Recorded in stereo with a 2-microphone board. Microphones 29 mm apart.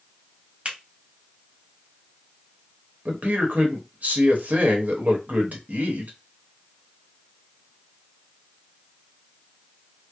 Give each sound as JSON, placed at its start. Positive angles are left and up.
{"t": 0.7, "sound": "a finger snap", "side_deg": -40, "distance_m": 1.8}
{"t": 3.0, "sound": "a man speaking", "side_deg": -65, "distance_m": 1.2}